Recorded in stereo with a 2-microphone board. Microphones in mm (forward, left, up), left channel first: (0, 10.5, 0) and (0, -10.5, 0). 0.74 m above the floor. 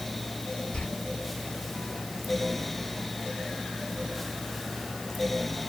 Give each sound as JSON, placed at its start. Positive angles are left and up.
{"t": 0.7, "sound": "a door slam", "side_deg": 70, "distance_m": 7.5}